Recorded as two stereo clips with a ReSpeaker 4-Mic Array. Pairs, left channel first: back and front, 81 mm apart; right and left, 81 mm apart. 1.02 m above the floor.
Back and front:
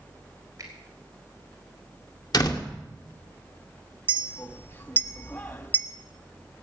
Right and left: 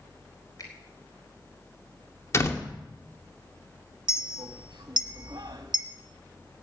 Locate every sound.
0.6 s a finger snap: 45° right, 4 m
2.3 s a door slam: 145° right, 2.0 m
4.1 s a clink: 120° left, 1.1 m